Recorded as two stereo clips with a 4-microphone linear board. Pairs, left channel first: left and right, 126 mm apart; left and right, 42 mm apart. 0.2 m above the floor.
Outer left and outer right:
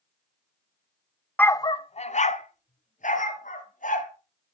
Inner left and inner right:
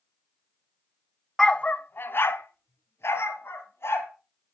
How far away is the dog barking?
About 0.5 m.